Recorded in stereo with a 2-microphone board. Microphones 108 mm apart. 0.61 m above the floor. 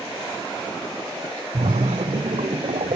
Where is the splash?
85° right, 1.1 m.